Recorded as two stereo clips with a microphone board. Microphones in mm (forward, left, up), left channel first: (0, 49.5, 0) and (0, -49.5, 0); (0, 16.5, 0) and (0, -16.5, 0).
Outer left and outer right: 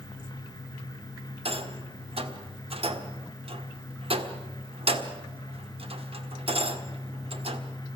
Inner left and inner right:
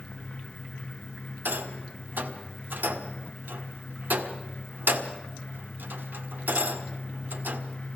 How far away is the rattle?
About 1.7 m.